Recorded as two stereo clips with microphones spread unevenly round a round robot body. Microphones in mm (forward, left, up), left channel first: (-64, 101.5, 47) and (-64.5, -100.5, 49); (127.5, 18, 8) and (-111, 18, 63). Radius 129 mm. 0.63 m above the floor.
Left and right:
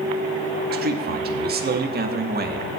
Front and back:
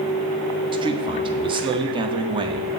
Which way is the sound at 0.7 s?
105° right.